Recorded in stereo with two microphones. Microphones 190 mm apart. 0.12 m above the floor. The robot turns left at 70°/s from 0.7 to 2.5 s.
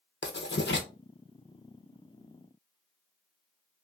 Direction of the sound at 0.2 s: 70° left (ahead or behind).